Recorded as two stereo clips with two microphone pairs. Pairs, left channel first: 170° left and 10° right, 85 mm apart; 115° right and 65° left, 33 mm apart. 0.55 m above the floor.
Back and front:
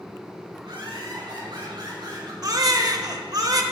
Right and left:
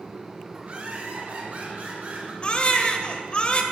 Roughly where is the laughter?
Ahead.